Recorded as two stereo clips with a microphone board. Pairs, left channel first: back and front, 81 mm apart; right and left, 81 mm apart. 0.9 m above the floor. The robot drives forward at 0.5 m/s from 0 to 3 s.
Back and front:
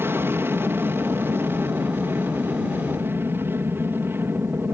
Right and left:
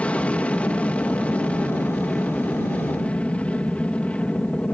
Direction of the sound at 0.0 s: 30° right.